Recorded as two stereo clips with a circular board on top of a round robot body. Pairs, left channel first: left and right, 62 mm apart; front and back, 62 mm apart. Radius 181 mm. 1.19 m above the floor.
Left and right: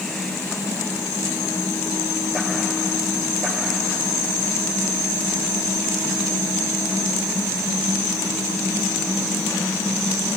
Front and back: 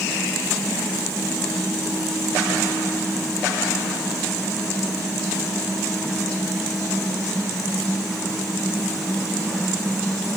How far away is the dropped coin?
I don't hear a dropped coin.